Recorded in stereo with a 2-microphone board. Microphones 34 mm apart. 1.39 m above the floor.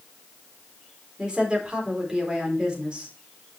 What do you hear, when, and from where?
1.2 s a woman speaking: 25° right (ahead or behind), 4 m